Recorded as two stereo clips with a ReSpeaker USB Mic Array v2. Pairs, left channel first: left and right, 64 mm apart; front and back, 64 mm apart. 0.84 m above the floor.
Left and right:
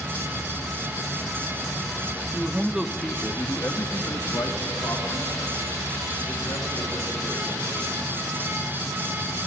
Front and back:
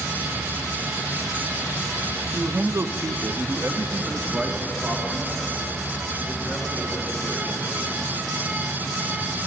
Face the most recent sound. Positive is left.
turn(degrees=115)